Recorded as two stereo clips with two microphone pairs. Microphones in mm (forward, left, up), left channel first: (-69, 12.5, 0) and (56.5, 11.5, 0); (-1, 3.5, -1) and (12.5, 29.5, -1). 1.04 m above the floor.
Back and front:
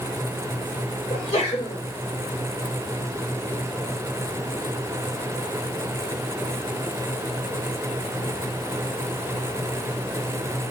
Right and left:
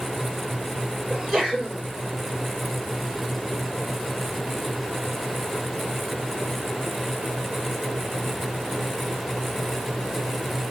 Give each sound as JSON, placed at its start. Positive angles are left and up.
{"t": 1.1, "sound": "a sneeze", "azimuth_deg": 130, "distance_m": 4.0}